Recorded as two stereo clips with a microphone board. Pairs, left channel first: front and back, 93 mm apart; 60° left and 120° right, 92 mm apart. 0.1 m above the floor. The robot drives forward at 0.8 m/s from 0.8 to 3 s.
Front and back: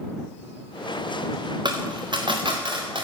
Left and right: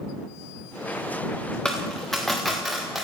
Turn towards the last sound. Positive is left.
turn(degrees=150)